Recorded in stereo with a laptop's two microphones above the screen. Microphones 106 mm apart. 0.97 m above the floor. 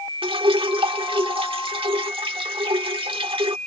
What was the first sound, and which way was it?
Dripping, 55° right (ahead or behind).